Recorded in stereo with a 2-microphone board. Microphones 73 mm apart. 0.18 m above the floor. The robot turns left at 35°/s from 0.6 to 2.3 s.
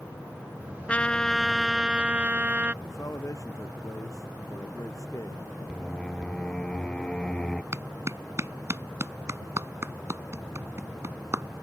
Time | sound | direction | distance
0.9 | a trumpet | 25° left | ?
2.8 | a man speaking | 50° left (ahead or behind) | ?
5.7 | singing | 10° left (ahead or behind) | ?
7.7 | a clap | 45° right (ahead or behind) | ?